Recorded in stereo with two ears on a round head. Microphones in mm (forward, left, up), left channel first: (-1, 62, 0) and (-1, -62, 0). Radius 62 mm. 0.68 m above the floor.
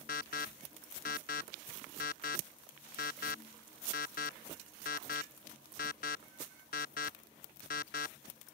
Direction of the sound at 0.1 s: 65° left (ahead or behind).